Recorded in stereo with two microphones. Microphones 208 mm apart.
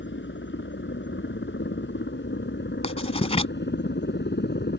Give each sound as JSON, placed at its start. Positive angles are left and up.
{"t": 0.0, "sound": "a helicopter", "side_deg": 65}
{"t": 2.8, "sound": "writing", "side_deg": 30}